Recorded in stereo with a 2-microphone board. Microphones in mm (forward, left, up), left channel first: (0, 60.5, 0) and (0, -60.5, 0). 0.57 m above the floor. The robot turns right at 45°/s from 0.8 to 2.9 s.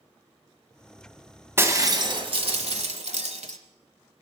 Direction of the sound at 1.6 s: 160° right.